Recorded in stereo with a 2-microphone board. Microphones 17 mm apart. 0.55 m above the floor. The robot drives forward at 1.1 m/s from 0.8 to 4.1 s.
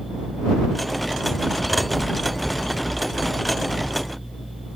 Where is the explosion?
5° right (ahead or behind).